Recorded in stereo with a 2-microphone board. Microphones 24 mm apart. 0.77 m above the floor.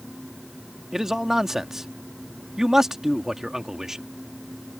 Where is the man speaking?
25° right (ahead or behind).